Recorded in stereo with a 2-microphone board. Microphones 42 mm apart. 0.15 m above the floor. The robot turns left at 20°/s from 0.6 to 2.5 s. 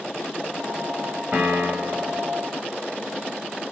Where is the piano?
40° right (ahead or behind), 2 m; by 2.2 s 50° right (ahead or behind), 2 m.